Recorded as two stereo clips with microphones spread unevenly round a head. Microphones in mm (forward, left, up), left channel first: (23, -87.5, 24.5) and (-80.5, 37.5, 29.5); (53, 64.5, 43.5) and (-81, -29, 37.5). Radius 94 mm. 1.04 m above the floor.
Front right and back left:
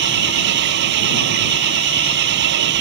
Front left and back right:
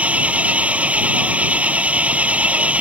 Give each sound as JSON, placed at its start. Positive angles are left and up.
{"t": 0.0, "sound": "an engine running", "azimuth_deg": 135}